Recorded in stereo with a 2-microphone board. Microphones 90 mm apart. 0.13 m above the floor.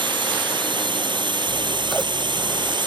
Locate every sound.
0.0 s a drone: 65° right (ahead or behind)
1.5 s scissors: centre (ahead or behind)